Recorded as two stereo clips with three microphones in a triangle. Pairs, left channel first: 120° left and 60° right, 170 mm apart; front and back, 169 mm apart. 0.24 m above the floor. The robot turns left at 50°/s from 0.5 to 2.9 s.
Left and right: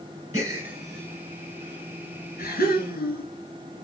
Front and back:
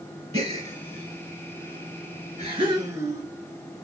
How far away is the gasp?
About 1.1 m.